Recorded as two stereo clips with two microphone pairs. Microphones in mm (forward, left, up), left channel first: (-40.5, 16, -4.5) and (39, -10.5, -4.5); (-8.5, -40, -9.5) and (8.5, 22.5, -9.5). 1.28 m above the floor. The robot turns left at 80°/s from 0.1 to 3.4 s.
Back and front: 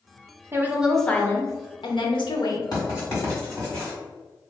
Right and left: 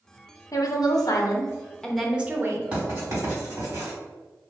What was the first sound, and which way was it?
A woman speaking, 75° right.